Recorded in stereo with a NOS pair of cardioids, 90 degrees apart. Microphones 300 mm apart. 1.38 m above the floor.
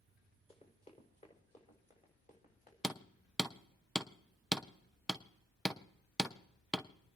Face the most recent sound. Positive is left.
turn(degrees=0)